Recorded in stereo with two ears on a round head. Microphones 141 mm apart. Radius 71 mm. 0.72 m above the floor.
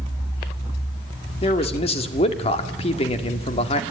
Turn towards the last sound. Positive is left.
turn(degrees=40)  # may be behind; listen again after turning